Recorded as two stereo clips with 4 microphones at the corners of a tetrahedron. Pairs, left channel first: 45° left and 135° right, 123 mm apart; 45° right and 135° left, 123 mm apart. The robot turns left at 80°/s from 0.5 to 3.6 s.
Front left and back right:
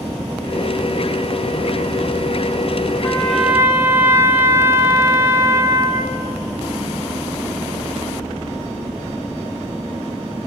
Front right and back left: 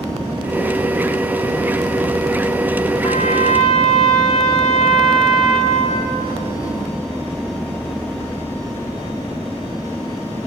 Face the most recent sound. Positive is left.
turn(degrees=-65)